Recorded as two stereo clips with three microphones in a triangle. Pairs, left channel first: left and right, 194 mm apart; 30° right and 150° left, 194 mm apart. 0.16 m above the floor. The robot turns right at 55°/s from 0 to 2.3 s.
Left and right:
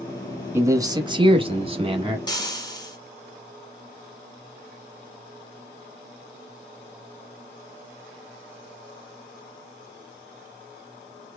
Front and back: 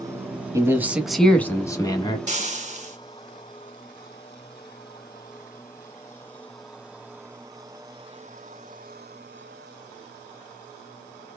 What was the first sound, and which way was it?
A man speaking, 155° right.